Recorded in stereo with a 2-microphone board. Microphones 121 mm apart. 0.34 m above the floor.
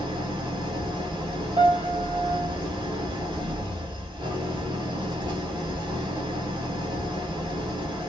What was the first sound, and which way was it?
An engine running, 40° right (ahead or behind).